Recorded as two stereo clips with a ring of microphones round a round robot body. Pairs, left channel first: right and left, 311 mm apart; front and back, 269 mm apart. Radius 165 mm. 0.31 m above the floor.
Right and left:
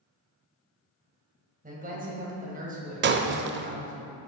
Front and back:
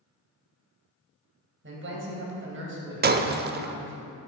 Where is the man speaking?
150° left, 2.5 m.